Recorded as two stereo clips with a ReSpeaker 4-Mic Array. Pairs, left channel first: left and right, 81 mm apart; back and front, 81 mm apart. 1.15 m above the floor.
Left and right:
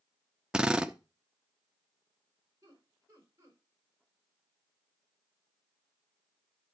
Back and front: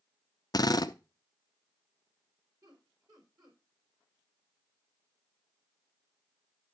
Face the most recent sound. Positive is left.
turn(degrees=-35)